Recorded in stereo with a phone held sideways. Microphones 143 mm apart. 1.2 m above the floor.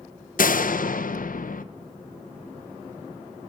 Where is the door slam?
70° left (ahead or behind), 0.5 m.